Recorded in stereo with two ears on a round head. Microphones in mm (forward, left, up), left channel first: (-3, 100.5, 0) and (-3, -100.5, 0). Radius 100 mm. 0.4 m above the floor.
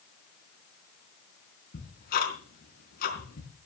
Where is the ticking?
45° left (ahead or behind), 4 m.